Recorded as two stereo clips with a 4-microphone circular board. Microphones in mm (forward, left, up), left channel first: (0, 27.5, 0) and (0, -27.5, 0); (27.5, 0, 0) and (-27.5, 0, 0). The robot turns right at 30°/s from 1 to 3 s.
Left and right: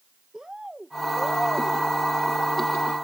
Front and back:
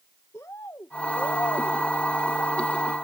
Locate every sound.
0.3 s a bird: 15° right; by 1.8 s 5° left